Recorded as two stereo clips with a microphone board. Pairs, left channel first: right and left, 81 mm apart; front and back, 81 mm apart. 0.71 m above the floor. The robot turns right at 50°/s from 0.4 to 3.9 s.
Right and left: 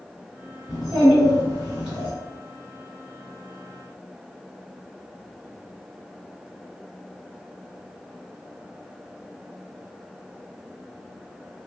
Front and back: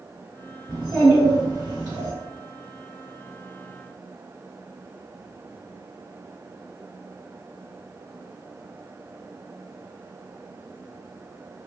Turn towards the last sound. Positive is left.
turn(degrees=-65)